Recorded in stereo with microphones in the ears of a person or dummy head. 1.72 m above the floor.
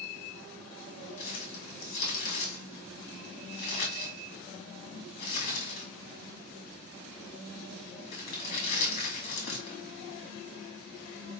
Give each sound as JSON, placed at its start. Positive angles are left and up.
{"t": 1.2, "sound": "crumpling", "side_deg": 55, "distance_m": 2.0}